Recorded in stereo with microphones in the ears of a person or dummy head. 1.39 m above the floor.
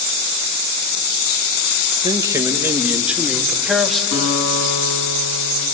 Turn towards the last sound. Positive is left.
turn(degrees=80)